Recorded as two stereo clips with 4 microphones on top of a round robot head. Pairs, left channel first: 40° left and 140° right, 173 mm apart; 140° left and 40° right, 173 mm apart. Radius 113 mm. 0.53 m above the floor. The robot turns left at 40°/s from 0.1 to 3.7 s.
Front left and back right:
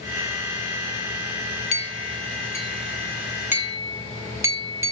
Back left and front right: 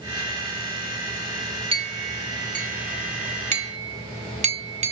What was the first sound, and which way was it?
A clink, 5° left.